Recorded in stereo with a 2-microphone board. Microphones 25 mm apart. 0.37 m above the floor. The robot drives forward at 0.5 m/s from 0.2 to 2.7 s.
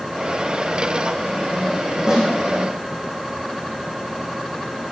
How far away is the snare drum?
About 7 m.